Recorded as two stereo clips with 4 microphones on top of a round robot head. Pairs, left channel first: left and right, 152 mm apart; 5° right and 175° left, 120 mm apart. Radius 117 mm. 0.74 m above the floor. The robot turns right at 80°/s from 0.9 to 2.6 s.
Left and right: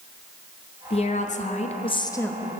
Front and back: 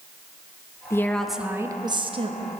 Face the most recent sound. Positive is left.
turn(degrees=-170)